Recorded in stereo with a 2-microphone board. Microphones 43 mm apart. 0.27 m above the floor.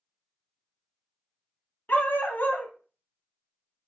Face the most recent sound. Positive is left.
turn(degrees=55)  # may be behind; listen again after turning